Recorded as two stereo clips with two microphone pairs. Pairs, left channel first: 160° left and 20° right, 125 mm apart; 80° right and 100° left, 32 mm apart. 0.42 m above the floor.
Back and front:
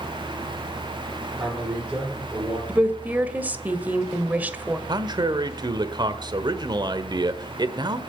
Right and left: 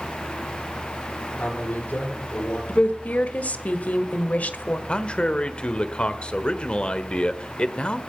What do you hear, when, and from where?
1.3 s a man speaking: 105° right, 9.5 m
2.7 s a woman speaking: 95° right, 1.4 m
4.9 s a man speaking: 50° right, 1.2 m